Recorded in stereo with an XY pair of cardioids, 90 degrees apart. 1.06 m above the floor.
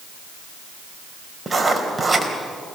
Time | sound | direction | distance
1.5 | writing | 15° right | 3.5 m